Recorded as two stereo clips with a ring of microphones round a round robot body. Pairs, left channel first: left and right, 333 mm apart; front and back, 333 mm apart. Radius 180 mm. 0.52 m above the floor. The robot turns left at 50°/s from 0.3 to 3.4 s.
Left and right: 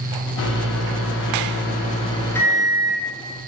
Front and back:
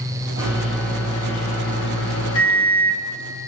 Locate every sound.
0.4 s a microwave: 110° left, 0.5 m; by 3.0 s 25° right, 0.5 m